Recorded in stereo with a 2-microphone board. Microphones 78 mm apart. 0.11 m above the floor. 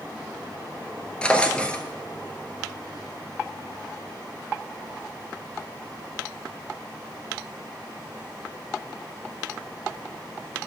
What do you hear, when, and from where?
1.2 s a drawer: 15° left (ahead or behind), 0.7 m